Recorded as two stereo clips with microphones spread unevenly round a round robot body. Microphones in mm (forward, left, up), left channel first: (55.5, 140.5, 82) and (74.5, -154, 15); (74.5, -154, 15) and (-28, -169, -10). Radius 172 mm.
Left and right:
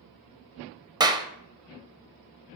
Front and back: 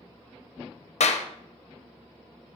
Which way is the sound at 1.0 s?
10° right.